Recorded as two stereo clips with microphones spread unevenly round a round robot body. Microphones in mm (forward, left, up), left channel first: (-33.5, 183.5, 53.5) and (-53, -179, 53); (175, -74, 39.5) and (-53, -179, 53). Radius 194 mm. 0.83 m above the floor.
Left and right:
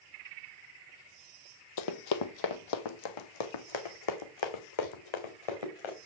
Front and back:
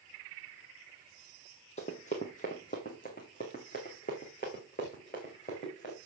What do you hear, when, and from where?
1.8 s running footsteps: 95° left, 1.1 m